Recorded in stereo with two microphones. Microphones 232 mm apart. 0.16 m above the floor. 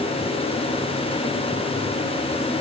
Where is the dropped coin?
I don't hear a dropped coin.